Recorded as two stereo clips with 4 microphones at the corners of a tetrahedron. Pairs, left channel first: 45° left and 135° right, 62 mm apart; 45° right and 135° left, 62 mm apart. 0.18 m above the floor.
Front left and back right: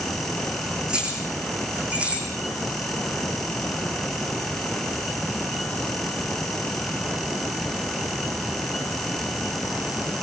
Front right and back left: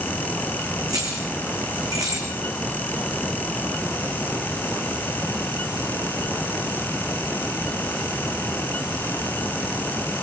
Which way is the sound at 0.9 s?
150° left.